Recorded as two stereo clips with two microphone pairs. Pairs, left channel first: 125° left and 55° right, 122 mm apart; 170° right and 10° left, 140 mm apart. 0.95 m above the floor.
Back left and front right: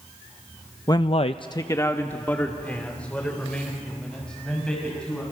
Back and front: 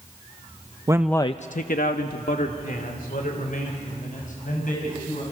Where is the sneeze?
No sneeze in this recording.